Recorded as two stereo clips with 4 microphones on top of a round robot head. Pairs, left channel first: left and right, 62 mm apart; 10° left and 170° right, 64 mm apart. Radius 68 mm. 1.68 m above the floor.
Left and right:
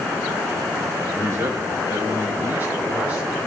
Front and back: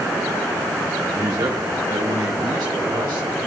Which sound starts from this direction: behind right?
A man speaking, at 1.1 s.